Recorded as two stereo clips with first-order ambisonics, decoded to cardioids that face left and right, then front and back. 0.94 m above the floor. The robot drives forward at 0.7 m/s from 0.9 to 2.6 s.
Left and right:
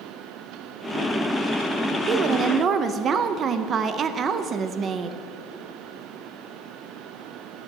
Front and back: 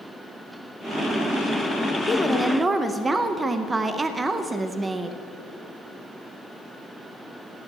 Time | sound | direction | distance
2.1 | a woman speaking | 55° right | 0.7 m